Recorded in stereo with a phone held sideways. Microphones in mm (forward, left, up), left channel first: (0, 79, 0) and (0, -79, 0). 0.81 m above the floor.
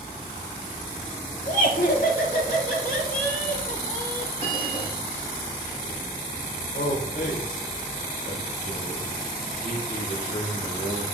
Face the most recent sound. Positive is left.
turn(degrees=70)  # may be behind; listen again after turning